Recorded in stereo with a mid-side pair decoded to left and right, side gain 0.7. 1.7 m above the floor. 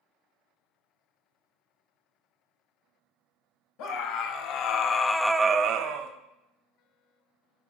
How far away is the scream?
About 1.5 m.